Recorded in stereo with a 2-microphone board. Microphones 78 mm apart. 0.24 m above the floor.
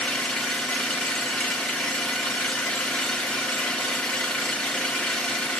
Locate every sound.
0.0 s an engine running: 10° left (ahead or behind), 1.7 m